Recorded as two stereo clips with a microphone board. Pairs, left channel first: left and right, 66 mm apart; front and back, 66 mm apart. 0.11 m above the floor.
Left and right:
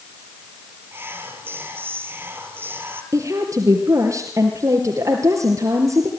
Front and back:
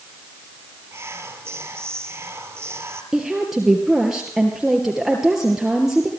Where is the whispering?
140° right, 2.5 m.